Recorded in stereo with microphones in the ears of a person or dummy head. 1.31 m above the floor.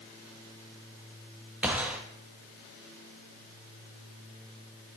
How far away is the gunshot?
About 1.0 m.